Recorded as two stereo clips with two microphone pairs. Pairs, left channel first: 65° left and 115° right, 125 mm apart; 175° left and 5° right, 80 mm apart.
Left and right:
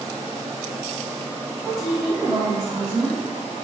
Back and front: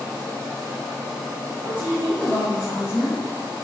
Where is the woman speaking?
65° right, 1.7 m.